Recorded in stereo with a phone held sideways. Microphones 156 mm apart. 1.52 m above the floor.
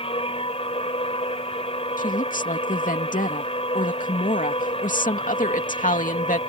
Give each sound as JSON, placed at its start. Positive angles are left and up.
{"t": 0.0, "sound": "a machine running", "side_deg": 40}
{"t": 2.0, "sound": "a woman speaking", "side_deg": 60}